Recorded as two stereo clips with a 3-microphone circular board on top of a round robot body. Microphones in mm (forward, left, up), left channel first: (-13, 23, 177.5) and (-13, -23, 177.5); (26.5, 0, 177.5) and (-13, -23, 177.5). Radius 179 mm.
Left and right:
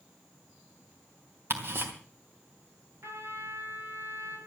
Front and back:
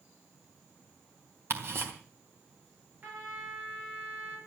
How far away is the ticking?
About 3.5 m.